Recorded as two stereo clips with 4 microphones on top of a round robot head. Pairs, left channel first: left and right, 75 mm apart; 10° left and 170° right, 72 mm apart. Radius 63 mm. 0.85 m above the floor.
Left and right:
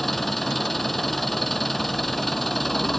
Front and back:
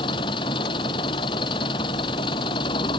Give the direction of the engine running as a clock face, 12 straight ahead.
12 o'clock.